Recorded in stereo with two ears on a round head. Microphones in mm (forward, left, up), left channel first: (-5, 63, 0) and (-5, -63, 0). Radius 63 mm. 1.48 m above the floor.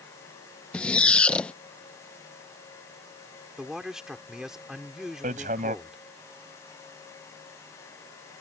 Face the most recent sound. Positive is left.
turn(degrees=-55)  # may be behind; listen again after turning